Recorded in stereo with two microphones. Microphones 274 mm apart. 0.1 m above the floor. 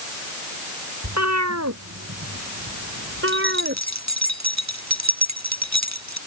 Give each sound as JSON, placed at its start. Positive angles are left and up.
{"t": 1.0, "sound": "a cat meowing", "side_deg": -70}
{"t": 3.3, "sound": "keys jangling", "side_deg": -70}